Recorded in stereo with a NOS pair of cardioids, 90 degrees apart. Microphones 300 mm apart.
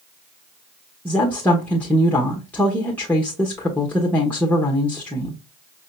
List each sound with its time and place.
1.1 s a woman speaking: 5° left, 1.1 m